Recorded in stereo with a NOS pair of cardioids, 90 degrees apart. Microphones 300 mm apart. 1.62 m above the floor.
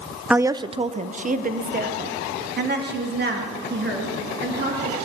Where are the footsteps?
No footsteps in this recording.